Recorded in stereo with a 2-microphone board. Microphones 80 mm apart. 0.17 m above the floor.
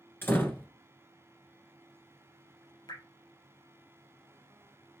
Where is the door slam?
25° left (ahead or behind), 1.5 m.